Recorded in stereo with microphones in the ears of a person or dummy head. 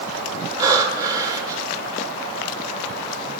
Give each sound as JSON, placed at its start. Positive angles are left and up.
{"t": 0.6, "sound": "breathing", "side_deg": -20, "distance_m": 1.5}